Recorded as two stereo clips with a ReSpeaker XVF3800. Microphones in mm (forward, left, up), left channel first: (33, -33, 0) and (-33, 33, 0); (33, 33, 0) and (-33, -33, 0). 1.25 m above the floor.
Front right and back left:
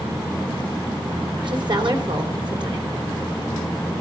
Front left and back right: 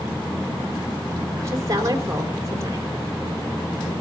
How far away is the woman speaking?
About 3.5 m.